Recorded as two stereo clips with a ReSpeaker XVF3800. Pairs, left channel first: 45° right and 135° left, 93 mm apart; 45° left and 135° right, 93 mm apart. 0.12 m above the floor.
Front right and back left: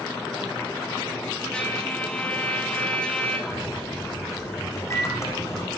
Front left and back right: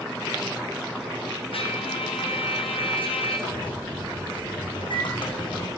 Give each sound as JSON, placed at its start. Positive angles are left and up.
{"t": 1.5, "sound": "a trumpet", "azimuth_deg": 35, "distance_m": 3.5}
{"t": 3.5, "sound": "a microwave", "azimuth_deg": 15, "distance_m": 6.5}